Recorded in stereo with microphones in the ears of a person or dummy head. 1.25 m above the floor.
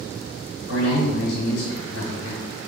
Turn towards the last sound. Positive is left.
turn(degrees=75)  # may be behind; listen again after turning